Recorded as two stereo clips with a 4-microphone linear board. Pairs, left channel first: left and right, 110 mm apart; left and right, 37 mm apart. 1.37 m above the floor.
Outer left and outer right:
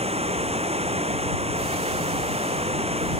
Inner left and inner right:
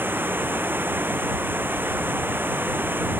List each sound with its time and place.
0.0 s running water: 70° right (ahead or behind)